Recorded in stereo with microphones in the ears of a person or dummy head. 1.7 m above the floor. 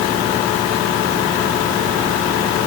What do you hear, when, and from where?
Only background noise.